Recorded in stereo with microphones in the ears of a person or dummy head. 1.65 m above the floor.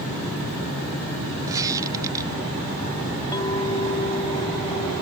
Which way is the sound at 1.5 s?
15° right (ahead or behind).